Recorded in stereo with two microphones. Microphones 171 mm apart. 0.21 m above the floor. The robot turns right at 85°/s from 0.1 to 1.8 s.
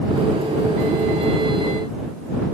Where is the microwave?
No microwave in this recording.